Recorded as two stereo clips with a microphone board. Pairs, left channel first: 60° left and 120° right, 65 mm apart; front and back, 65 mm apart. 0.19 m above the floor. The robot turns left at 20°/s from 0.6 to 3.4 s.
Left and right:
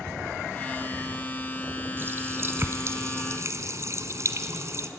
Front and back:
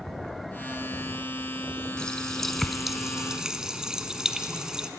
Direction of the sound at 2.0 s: 75° right.